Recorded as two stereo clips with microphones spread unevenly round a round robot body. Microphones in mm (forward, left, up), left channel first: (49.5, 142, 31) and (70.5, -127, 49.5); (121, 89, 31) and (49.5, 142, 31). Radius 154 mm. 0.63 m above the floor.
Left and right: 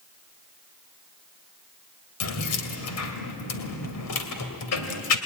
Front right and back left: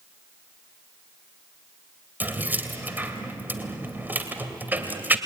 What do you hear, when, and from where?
2.2 s keys jangling: 75° left, 2.5 m